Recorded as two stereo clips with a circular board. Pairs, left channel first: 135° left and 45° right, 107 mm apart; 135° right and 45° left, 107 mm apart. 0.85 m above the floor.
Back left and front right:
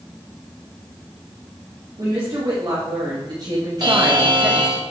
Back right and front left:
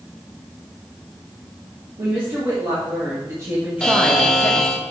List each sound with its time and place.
2.0 s a woman speaking: straight ahead, 2 m; by 4.8 s 135° right, 0.8 m
3.8 s a buzzer: 55° right, 0.8 m